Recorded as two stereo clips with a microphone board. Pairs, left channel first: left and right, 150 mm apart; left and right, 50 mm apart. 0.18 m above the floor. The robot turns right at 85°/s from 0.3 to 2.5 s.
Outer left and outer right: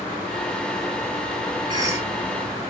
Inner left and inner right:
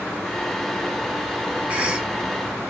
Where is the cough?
50° right, 1.3 m; by 2.1 s 15° right, 1.3 m.